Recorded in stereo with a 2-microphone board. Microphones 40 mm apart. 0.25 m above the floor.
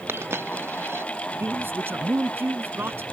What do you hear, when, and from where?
0.1 s a dropped coin: 70° right (ahead or behind)
1.4 s a man speaking: 65° right (ahead or behind)